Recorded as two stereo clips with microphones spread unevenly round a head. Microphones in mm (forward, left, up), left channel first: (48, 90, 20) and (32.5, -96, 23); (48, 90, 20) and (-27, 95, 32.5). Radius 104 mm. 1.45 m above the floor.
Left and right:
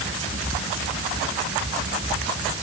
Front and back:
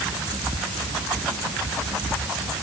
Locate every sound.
Only background noise.